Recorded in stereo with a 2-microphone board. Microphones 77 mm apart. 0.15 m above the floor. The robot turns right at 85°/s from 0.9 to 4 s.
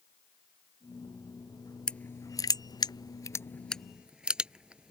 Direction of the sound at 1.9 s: 10° left (ahead or behind).